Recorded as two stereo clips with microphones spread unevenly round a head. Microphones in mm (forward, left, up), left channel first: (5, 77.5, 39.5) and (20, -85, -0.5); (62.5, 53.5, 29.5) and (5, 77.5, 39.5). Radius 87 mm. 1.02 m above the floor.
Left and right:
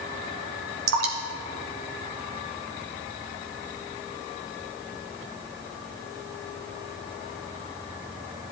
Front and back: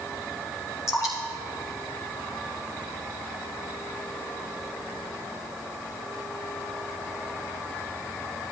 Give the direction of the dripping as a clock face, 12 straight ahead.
3 o'clock.